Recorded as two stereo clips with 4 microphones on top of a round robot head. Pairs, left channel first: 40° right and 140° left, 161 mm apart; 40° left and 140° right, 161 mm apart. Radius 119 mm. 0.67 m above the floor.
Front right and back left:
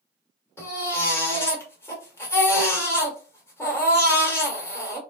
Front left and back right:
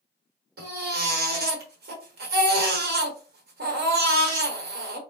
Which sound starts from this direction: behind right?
A baby crying, at 0.6 s.